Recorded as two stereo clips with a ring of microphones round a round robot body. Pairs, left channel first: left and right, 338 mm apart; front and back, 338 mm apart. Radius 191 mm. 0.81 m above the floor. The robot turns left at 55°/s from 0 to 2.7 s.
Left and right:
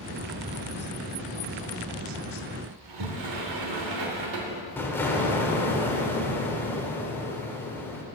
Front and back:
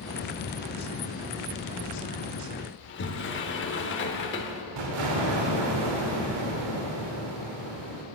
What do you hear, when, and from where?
2.8 s a sliding door: 55° right, 0.8 m
4.8 s an explosion: 175° left, 1.1 m